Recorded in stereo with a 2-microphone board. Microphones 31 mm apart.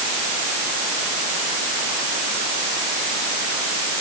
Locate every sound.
Only background noise.